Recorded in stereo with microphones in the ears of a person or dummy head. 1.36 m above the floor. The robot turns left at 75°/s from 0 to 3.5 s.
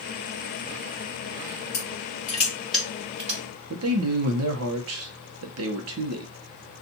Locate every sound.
1.7 s crushing: 75° left (ahead or behind), 2.5 m; by 3.4 s 50° right (ahead or behind), 2.5 m
3.7 s a man speaking: 75° right (ahead or behind), 0.8 m